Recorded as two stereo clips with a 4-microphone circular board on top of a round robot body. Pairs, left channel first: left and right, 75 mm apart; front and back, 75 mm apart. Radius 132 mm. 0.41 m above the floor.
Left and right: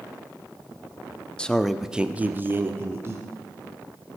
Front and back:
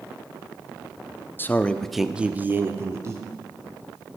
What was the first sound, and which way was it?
A man speaking, 25° left.